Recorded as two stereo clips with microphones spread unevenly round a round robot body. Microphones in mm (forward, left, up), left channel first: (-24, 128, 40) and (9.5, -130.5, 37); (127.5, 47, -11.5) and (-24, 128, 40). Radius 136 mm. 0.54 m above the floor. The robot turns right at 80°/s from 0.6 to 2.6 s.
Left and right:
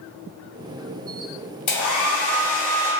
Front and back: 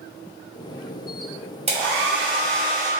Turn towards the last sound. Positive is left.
turn(degrees=165)